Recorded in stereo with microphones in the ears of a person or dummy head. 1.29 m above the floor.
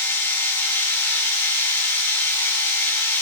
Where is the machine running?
5° left (ahead or behind), 4.5 m.